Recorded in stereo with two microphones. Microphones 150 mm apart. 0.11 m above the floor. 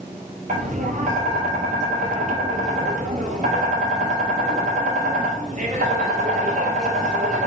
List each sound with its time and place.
0.5 s tapping: 60° right (ahead or behind), 1.0 m